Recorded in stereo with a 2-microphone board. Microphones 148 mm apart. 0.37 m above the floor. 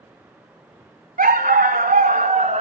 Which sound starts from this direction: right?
A dog barking, at 1.2 s.